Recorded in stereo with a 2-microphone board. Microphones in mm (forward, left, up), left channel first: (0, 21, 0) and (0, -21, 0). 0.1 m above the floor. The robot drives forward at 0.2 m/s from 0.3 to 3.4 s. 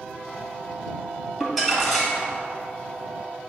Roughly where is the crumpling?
Centre.